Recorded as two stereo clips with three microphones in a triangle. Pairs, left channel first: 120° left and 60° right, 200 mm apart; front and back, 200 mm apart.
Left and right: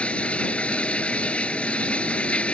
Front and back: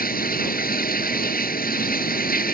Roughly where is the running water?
Ahead left.